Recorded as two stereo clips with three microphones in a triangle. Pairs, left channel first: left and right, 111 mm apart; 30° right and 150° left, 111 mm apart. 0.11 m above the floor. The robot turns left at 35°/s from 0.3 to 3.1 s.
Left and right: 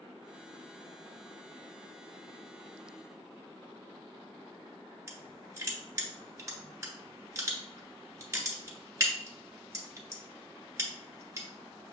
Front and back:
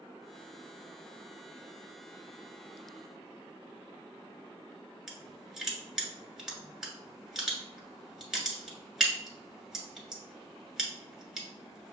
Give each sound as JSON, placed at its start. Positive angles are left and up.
{"t": 5.1, "sound": "crushing", "azimuth_deg": -130, "distance_m": 1.5}